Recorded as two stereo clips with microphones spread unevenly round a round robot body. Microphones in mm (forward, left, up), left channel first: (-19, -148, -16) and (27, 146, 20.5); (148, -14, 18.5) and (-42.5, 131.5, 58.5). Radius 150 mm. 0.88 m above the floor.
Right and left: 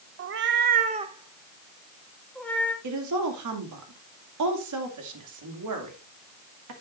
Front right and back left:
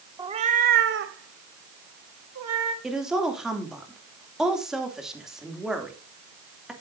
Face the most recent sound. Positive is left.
turn(degrees=50)